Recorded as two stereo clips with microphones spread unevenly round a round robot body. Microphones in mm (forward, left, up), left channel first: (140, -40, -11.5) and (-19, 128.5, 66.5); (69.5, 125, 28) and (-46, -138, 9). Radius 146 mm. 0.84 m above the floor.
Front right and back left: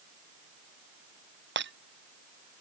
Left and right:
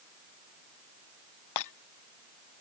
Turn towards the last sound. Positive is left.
turn(degrees=95)